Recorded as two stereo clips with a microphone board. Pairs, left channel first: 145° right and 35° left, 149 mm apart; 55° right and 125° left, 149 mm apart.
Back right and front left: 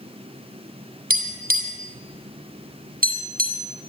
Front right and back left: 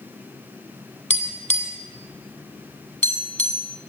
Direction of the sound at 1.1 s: 25° left.